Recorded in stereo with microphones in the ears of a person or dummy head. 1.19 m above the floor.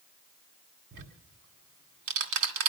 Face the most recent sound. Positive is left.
turn(degrees=-65)  # may be behind; listen again after turning